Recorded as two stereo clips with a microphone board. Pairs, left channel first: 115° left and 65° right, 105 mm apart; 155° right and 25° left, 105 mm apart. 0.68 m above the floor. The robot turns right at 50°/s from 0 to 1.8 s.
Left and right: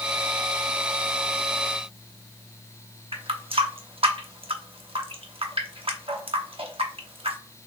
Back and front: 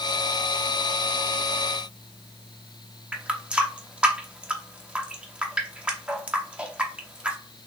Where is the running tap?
55° right, 0.8 m.